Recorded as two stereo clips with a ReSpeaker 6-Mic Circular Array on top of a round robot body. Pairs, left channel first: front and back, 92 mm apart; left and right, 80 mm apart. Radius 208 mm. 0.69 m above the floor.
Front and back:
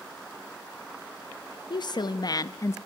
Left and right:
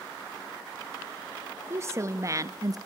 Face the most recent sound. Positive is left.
turn(degrees=-55)